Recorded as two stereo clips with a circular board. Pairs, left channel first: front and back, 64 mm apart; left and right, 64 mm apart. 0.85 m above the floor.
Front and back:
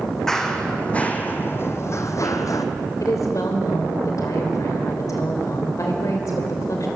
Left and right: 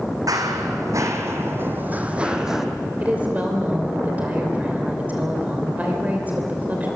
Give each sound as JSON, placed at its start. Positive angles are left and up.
{"t": 0.3, "sound": "running footsteps", "azimuth_deg": -80, "distance_m": 2.0}
{"t": 3.0, "sound": "a woman speaking", "azimuth_deg": -25, "distance_m": 3.0}